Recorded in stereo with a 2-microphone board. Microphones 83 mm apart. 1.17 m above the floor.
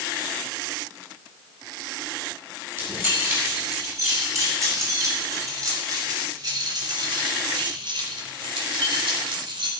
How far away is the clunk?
No clunk in this recording.